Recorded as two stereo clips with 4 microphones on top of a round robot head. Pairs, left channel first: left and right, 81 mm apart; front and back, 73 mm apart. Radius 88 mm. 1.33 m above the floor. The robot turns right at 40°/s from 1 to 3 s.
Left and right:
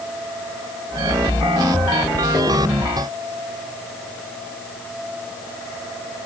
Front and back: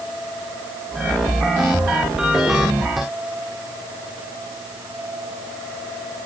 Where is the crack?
I don't hear a crack.